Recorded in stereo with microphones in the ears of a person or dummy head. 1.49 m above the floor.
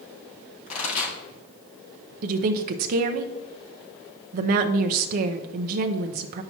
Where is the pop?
45° left (ahead or behind), 3.5 m.